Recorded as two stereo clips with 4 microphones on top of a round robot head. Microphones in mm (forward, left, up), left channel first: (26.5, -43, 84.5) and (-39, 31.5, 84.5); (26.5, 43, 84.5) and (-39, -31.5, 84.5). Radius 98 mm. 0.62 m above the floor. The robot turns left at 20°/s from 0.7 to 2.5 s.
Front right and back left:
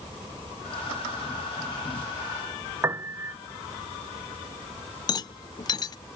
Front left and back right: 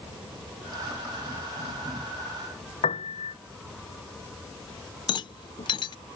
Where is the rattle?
5° left.